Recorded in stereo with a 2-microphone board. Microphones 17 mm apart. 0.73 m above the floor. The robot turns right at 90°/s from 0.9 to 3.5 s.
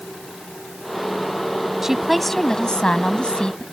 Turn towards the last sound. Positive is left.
turn(degrees=125)